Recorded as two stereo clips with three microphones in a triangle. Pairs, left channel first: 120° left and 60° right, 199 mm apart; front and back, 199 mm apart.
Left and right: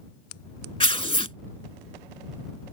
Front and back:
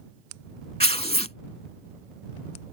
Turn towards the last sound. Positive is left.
turn(degrees=60)